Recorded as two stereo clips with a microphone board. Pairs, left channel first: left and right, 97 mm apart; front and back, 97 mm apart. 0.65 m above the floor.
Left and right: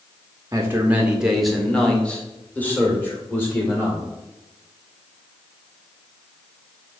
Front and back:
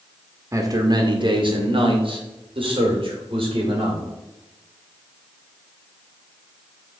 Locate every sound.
0.5 s a man speaking: 135° right, 0.7 m; by 4.0 s 155° left, 2.5 m